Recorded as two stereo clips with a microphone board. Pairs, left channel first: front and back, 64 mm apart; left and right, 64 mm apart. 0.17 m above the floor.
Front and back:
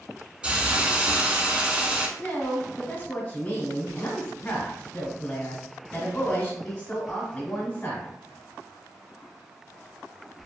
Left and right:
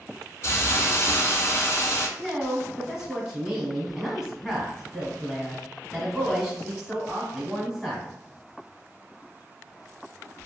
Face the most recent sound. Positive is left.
turn(degrees=-20)